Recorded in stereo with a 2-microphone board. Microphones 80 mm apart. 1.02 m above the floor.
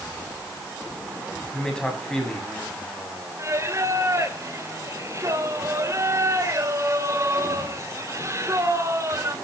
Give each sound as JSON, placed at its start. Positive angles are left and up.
{"t": 1.5, "sound": "a man speaking", "side_deg": 10, "distance_m": 7.0}
{"t": 3.4, "sound": "singing", "side_deg": -35, "distance_m": 2.5}